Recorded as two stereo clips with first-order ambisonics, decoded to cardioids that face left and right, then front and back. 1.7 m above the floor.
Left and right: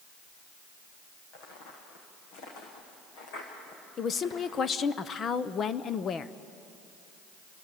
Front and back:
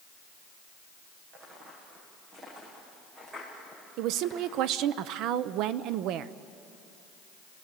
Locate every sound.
1.3 s footsteps: 125° left, 5 m; by 4.7 s 95° left, 8.5 m
4.0 s a woman speaking: 150° left, 0.7 m